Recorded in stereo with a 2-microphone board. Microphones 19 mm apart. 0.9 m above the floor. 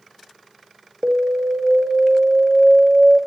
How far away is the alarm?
About 1.5 m.